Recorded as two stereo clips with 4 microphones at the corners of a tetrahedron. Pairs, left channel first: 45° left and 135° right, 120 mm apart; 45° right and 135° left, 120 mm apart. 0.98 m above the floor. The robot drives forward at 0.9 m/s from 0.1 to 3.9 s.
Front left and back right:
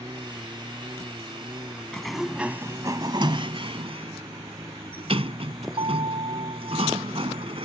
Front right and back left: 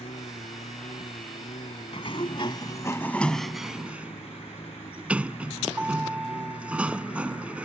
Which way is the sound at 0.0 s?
75° right.